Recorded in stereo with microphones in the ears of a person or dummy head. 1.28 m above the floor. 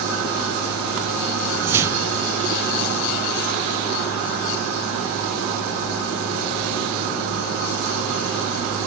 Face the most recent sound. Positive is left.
turn(degrees=-15)  # may be behind; listen again after turning